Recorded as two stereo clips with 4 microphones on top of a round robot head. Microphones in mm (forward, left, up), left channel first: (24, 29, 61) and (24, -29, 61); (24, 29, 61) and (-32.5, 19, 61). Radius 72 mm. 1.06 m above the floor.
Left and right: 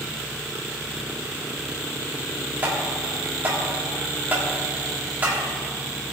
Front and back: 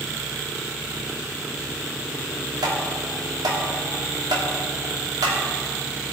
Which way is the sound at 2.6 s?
155° right.